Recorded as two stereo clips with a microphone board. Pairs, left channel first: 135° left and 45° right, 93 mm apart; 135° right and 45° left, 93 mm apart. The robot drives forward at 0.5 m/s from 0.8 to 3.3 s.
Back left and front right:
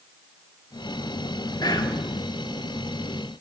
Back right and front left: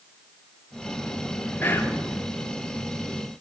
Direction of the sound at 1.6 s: 165° left.